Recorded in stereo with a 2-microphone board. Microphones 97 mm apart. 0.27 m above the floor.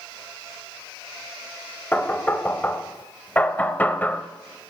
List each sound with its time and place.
1.9 s knocking: 20° left (ahead or behind), 0.6 m